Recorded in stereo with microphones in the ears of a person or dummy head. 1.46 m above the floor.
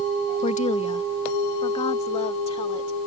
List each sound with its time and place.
0.4 s a woman speaking: 40° left (ahead or behind); by 3.0 s 30° left (ahead or behind)